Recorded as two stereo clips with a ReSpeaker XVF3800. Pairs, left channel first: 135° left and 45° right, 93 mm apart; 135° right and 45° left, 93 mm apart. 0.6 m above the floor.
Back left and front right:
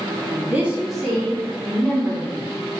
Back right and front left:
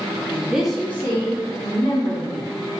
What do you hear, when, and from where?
0.3 s a woman speaking: straight ahead, 0.7 m; by 2.5 s 160° right, 1.6 m